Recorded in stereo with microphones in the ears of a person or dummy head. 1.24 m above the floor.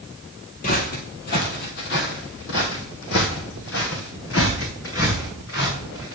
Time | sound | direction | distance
0.6 | footsteps | 25° left (ahead or behind) | 1.3 m